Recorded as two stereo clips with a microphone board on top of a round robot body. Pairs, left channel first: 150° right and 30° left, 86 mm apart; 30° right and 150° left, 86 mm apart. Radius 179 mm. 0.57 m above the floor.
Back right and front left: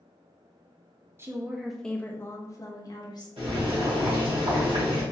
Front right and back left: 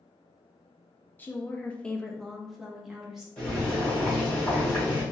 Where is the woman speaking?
15° left, 0.7 m; by 3.3 s 125° right, 1.2 m.